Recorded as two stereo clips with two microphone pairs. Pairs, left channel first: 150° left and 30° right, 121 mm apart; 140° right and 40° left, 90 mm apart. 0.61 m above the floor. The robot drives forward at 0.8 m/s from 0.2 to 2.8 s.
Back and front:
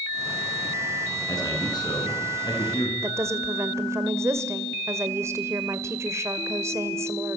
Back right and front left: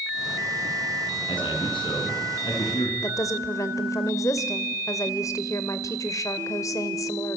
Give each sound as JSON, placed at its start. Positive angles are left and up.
{"t": 1.3, "sound": "a man speaking", "azimuth_deg": -155, "distance_m": 6.0}
{"t": 3.0, "sound": "a woman speaking", "azimuth_deg": -90, "distance_m": 2.0}